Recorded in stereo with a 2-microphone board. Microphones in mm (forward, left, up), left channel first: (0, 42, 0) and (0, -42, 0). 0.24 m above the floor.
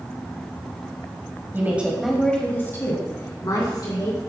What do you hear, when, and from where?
1.5 s a woman speaking: 25° right (ahead or behind), 1.5 m; by 4.2 s 55° left (ahead or behind), 3.5 m